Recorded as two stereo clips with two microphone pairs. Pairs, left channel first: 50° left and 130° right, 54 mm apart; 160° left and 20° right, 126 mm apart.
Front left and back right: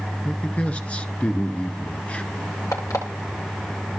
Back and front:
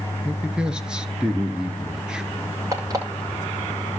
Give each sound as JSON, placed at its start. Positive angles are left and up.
{"t": 0.2, "sound": "a man speaking", "azimuth_deg": 50, "distance_m": 1.3}
{"t": 2.7, "sound": "an alarm clock", "azimuth_deg": 40, "distance_m": 9.5}